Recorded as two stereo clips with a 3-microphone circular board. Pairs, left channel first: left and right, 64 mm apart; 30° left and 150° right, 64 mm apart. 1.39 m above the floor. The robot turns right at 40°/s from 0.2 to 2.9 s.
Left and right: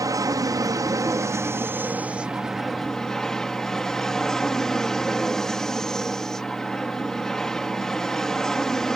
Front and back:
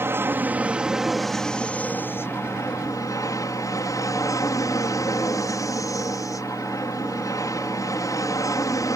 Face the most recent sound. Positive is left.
turn(degrees=10)